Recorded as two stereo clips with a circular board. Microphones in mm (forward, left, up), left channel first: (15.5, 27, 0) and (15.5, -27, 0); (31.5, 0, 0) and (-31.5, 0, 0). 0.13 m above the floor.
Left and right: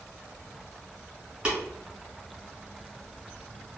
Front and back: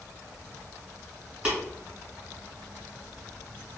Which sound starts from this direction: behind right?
Tapping, at 1.4 s.